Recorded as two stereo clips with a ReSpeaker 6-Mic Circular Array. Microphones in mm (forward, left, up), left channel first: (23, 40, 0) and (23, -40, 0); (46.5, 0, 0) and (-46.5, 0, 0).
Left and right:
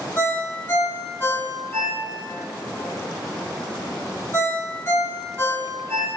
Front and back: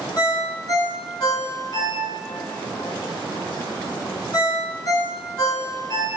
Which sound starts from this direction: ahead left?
A ringtone, at 0.2 s.